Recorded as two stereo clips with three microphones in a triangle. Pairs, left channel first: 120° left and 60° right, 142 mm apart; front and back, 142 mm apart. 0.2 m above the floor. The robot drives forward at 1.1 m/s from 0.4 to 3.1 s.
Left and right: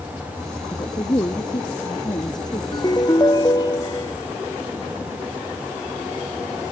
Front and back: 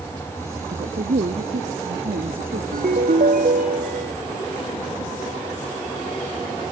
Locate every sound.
0.7 s a woman speaking: straight behind
2.7 s a ringtone: straight behind